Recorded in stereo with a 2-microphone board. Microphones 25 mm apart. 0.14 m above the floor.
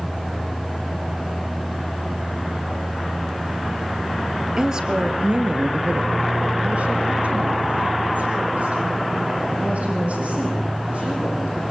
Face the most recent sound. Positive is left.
turn(degrees=-60)  # may be behind; listen again after turning